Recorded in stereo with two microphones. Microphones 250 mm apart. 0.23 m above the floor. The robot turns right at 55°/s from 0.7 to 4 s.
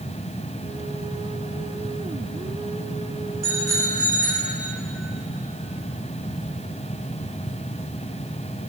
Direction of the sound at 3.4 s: 95° right.